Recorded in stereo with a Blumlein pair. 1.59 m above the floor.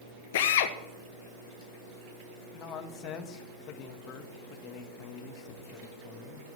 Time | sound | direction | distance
0.3 | a drill | 55° left | 1.2 m
2.5 | a man speaking | 30° left | 1.9 m